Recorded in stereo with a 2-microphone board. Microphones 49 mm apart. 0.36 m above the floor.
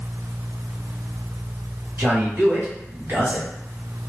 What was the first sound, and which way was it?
A man speaking, 50° right (ahead or behind).